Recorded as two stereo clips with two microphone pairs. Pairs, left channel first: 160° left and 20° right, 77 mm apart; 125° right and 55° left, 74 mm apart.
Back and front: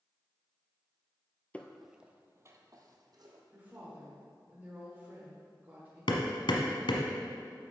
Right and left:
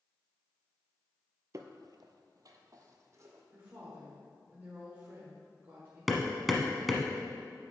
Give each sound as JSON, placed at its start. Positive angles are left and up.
{"t": 1.5, "sound": "footsteps", "azimuth_deg": 90, "distance_m": 0.6}
{"t": 3.5, "sound": "a woman speaking", "azimuth_deg": 20, "distance_m": 1.4}
{"t": 6.1, "sound": "hammering", "azimuth_deg": 145, "distance_m": 1.0}